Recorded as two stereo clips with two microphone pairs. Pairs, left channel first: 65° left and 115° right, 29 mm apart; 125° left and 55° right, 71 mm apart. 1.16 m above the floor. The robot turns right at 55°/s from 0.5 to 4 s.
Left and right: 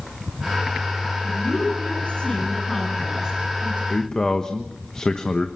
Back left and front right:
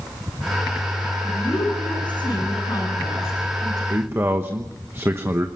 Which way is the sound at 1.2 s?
70° left.